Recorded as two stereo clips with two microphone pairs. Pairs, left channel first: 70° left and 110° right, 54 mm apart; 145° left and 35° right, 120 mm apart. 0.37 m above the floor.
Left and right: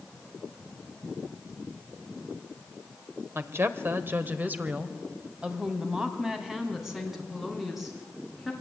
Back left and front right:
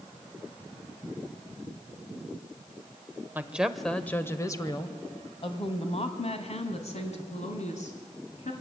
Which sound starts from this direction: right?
A woman speaking, at 3.4 s.